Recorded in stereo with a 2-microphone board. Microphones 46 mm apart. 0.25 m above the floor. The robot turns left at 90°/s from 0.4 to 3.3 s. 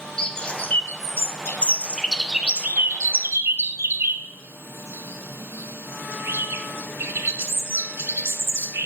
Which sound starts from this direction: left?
A bird, at 0.2 s.